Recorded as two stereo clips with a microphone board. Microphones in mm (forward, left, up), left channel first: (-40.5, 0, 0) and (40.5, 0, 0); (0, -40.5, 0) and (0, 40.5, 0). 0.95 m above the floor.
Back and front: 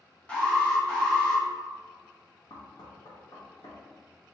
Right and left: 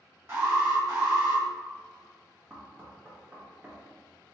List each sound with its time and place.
0.3 s an alarm: 115° left, 1.6 m
2.5 s knocking: 160° left, 1.1 m